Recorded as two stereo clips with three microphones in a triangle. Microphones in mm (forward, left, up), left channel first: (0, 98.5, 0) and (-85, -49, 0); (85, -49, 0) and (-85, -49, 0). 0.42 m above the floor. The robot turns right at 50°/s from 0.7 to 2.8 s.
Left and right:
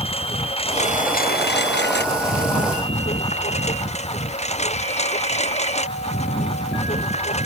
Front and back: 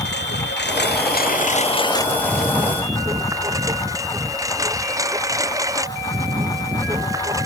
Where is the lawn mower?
5° left; by 7.5 s 110° left.